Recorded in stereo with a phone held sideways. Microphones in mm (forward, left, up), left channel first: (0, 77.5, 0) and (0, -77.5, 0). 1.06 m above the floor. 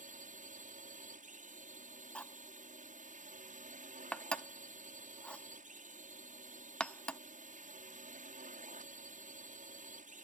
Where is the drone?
55° right (ahead or behind).